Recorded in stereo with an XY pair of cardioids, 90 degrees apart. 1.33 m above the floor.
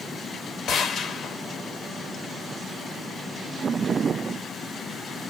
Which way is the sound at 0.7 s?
70° left.